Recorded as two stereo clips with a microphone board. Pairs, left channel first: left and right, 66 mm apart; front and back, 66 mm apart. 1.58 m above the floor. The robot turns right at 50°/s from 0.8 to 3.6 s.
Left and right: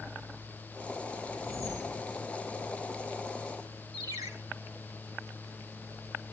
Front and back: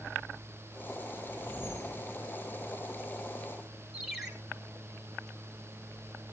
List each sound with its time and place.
1.3 s a whoosh: 120° right, 7.5 m; by 2.1 s 80° right, 7.5 m
3.9 s a ringtone: 95° right, 3 m